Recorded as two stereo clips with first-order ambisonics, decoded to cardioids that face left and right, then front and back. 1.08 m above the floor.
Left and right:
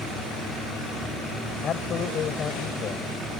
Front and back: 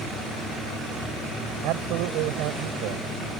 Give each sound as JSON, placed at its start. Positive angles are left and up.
{"t": 1.6, "sound": "a man speaking", "azimuth_deg": 150}